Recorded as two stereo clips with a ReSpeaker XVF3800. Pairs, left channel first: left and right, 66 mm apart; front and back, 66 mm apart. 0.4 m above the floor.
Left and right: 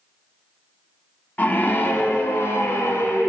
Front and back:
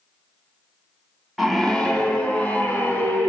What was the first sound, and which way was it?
A scream, 90° left.